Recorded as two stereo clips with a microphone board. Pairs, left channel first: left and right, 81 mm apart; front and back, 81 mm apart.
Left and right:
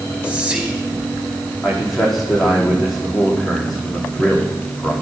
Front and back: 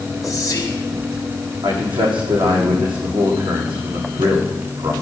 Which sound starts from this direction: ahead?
Whispering, at 0.2 s.